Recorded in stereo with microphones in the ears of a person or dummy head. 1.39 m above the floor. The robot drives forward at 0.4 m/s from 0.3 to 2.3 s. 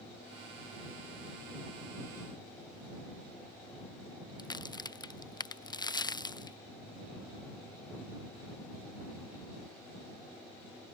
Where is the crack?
20° left (ahead or behind).